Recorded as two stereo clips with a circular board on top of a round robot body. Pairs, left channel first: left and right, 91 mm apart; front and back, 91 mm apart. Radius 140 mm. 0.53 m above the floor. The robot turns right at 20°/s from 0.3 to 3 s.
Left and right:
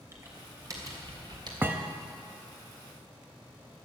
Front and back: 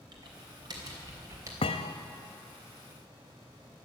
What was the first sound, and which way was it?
Typing on a keyboard, 150° right.